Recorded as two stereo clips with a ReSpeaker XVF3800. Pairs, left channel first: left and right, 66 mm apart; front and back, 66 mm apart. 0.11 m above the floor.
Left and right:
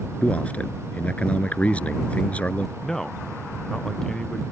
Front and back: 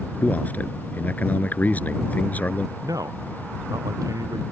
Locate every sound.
0.2 s a man speaking: 40° left
2.8 s a man speaking: 170° left